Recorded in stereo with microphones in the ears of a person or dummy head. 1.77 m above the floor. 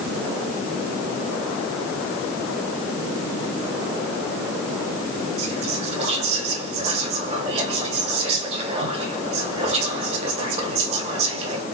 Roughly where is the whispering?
Right.